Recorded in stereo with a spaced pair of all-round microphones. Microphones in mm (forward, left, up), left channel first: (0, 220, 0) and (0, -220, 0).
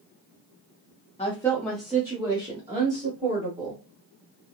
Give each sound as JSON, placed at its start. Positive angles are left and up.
{"t": 1.2, "sound": "a woman speaking", "side_deg": 15, "distance_m": 0.8}